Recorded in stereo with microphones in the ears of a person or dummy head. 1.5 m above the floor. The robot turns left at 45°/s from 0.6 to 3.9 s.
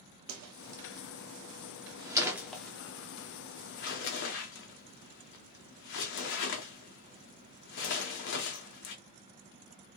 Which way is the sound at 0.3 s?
80° right.